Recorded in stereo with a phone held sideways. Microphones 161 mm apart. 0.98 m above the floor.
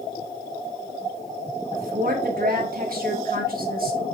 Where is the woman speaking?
65° right (ahead or behind), 1.4 m.